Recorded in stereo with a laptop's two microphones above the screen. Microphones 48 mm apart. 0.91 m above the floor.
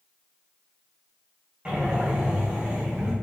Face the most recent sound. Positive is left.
turn(degrees=-20)  # may be behind; listen again after turning